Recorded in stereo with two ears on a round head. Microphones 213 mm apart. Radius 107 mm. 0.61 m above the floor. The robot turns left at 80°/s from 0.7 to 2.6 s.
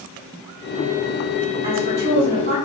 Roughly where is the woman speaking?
Ahead right.